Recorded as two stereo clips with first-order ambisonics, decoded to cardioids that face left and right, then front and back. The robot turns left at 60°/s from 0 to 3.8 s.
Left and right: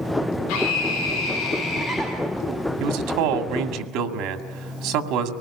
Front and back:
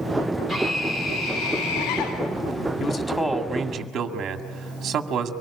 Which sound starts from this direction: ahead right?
A man speaking, at 2.8 s.